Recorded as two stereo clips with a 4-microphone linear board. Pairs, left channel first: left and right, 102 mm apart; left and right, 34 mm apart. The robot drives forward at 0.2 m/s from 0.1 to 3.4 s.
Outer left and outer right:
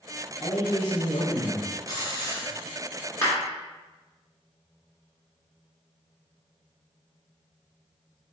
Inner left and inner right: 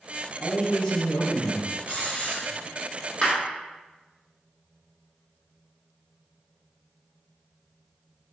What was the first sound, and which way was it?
A man speaking, 35° left (ahead or behind).